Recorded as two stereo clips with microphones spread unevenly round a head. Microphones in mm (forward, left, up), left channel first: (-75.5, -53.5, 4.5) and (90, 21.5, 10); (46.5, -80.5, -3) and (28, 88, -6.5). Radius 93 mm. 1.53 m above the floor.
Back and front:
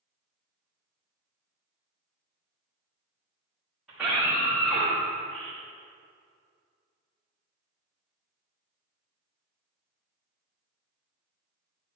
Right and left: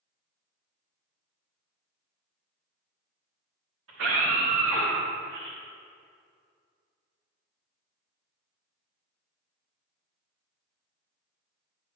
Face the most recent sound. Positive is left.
turn(degrees=125)